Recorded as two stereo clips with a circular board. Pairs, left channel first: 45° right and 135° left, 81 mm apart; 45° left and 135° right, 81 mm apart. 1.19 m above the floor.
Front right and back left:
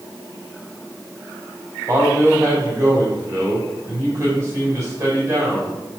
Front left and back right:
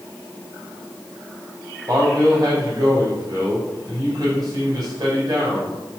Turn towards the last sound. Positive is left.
turn(degrees=-170)